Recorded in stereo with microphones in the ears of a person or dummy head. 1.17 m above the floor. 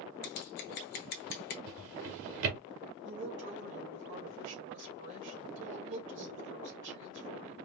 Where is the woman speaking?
60° right (ahead or behind), 2.5 m.